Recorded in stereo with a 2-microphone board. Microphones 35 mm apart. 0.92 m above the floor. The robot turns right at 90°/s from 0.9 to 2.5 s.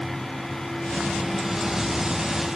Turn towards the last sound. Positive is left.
No sound to turn to.